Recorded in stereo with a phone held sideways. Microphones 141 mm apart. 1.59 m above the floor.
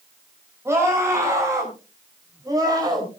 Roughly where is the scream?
Centre.